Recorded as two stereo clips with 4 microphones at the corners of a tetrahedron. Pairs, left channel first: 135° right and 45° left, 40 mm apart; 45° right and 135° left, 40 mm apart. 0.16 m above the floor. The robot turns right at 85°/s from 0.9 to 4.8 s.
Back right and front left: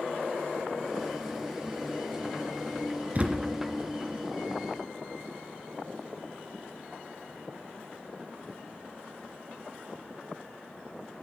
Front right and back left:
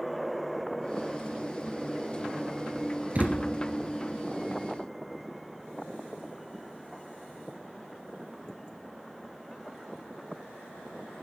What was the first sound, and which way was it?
A thud, 85° left.